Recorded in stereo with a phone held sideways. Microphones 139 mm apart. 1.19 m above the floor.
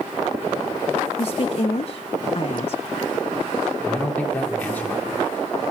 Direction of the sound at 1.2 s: 50° left (ahead or behind).